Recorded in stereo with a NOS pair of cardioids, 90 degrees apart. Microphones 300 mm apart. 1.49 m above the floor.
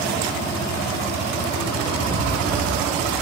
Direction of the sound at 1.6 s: 25° right.